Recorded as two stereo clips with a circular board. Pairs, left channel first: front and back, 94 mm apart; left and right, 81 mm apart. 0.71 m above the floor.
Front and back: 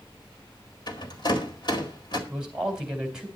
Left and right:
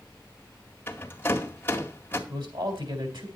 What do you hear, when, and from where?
0.9 s a rattle: 25° left, 2.0 m
2.3 s a man speaking: 95° right, 3.5 m